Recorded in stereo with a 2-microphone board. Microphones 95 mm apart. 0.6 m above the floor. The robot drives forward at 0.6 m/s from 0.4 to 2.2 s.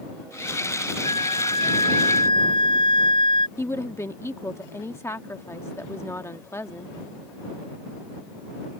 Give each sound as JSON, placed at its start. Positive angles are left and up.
{"t": 1.0, "sound": "a flute", "side_deg": 60}
{"t": 3.6, "sound": "a woman speaking", "side_deg": 30}